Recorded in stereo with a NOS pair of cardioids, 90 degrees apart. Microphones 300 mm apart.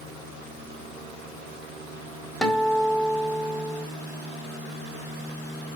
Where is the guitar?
Straight ahead, 1.8 m.